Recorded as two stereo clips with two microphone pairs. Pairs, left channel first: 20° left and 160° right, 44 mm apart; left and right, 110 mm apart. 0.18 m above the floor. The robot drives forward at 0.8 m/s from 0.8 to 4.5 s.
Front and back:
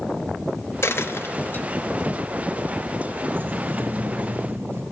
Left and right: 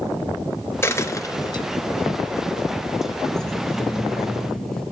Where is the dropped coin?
25° left, 1.1 m; by 1.6 s 60° left, 0.6 m.